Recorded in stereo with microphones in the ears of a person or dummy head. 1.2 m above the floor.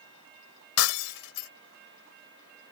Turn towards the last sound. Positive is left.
turn(degrees=75)  # may be behind; listen again after turning